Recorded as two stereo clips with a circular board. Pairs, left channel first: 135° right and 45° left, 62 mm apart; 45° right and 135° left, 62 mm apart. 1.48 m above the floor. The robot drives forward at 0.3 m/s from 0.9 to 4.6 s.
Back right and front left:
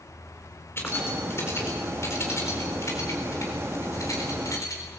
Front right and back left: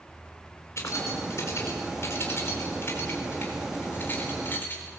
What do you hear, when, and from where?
0.8 s keys jangling: 85° right, 3.5 m; by 4.8 s 100° right, 4 m